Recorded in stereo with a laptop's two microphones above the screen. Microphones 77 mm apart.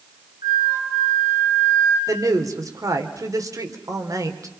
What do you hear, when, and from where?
0.4 s a flute: 65° right (ahead or behind), 5.5 m
2.1 s a woman speaking: 45° right (ahead or behind), 3 m